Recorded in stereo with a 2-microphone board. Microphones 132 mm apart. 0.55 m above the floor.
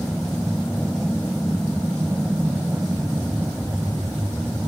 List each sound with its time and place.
0.0 s an aircraft: 5° right (ahead or behind); by 4.7 s 15° right (ahead or behind)